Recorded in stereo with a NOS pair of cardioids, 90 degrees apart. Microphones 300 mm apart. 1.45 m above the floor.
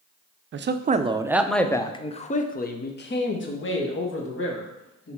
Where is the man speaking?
45° right, 0.7 m; by 5.2 s 50° left, 2.5 m.